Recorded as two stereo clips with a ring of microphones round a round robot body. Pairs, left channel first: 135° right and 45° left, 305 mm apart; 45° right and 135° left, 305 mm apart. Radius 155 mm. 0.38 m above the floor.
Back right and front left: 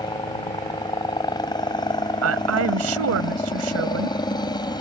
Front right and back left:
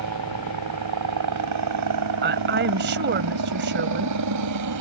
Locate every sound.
0.0 s a helicopter: 150° left
2.2 s a woman speaking: 80° left